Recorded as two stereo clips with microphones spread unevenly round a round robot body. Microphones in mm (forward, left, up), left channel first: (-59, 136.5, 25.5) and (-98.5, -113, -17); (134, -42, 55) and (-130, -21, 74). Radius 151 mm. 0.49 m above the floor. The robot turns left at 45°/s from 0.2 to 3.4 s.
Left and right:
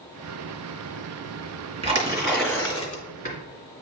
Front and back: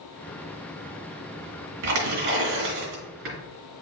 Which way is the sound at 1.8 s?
165° right.